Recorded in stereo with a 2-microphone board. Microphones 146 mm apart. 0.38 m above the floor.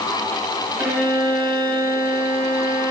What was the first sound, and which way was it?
A violin, 15° right (ahead or behind).